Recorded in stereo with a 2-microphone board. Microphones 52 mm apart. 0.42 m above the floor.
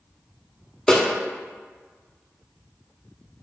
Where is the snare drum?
15° left (ahead or behind), 0.7 m.